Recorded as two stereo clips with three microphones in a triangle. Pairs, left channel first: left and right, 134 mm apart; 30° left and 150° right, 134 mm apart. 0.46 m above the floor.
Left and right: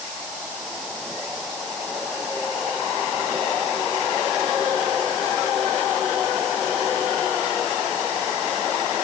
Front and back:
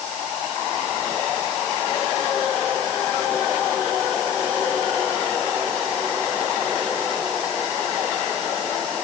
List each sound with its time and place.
Only background noise.